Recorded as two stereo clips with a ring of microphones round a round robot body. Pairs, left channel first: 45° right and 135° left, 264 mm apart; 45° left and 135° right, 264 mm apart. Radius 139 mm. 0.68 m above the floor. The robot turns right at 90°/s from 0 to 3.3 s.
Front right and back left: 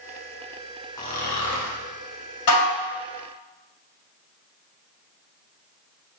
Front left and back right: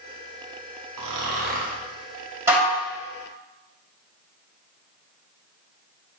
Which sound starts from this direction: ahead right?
Dishes clattering, at 2.5 s.